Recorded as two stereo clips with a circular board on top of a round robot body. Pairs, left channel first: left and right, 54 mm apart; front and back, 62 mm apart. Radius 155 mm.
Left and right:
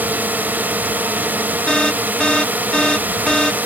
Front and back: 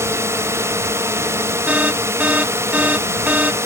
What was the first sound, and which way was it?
A drone, 145° right.